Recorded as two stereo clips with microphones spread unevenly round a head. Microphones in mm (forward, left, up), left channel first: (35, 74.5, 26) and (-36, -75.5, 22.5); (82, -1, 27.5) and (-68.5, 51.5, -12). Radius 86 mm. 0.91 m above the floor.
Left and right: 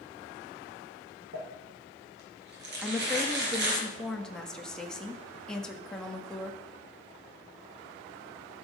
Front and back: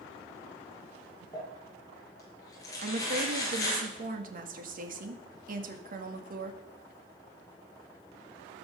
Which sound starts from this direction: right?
Crumpling, at 1.3 s.